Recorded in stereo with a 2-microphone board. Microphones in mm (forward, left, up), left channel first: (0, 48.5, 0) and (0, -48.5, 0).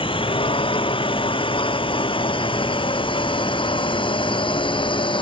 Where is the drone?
65° left (ahead or behind); by 5.2 s 60° left (ahead or behind).